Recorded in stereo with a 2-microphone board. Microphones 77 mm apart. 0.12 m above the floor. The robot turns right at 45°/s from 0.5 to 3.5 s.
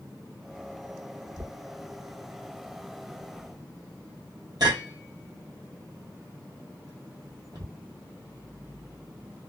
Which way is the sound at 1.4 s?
5° right (ahead or behind).